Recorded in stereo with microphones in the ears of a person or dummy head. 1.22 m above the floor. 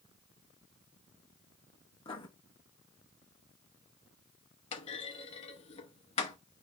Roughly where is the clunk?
Left.